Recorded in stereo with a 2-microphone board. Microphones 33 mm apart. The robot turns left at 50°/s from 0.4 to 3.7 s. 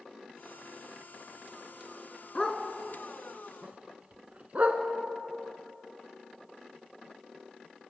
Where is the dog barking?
25° left (ahead or behind), 2.5 m; by 4.8 s 45° right (ahead or behind), 2.5 m.